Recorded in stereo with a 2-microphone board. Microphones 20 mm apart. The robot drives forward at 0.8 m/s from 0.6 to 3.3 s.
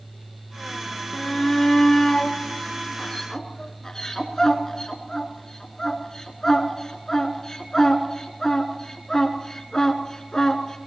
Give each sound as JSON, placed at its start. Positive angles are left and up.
{"t": 1.1, "sound": "a shout", "side_deg": 25, "distance_m": 2.5}